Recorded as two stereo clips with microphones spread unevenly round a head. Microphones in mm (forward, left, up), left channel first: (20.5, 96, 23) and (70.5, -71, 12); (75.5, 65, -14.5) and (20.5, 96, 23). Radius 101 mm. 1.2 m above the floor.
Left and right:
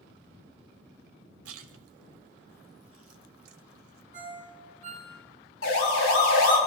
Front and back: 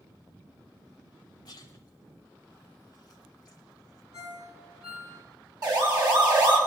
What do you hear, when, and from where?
1.4 s a splash: 90° right, 0.7 m
4.1 s a ringtone: 140° right, 6.5 m
5.6 s a siren: 135° left, 7 m